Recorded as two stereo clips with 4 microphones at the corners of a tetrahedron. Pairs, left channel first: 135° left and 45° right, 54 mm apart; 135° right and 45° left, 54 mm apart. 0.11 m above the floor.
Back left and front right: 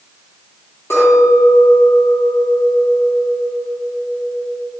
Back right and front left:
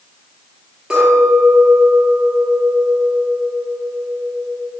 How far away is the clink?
About 1.7 m.